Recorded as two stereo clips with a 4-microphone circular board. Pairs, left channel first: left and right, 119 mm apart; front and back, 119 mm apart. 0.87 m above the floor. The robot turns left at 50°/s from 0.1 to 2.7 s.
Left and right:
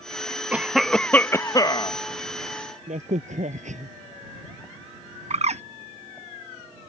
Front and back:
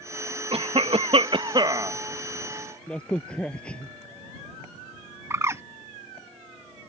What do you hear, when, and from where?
0.5 s a cough: 165° right; by 2.0 s 120° left
2.9 s a crack: 80° right
5.3 s a bird: 115° right